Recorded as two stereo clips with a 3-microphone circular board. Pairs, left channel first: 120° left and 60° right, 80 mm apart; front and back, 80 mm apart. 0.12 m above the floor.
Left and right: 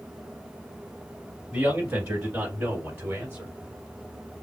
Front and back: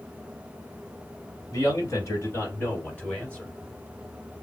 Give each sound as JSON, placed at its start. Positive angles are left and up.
{"t": 1.5, "sound": "a man speaking", "azimuth_deg": 5, "distance_m": 2.0}